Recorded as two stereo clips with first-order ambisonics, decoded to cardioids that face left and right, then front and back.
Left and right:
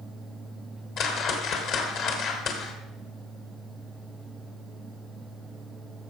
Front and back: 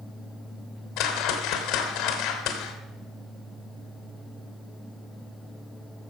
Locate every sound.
1.0 s a whoosh: 40° left, 2 m